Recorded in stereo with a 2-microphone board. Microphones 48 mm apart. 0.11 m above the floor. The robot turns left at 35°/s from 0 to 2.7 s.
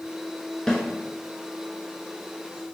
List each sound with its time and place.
0.7 s a snare drum: 15° left (ahead or behind), 0.9 m; by 0.8 s 10° left (ahead or behind), 0.9 m